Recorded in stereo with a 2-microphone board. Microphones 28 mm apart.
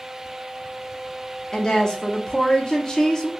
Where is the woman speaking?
30° left (ahead or behind), 0.8 m.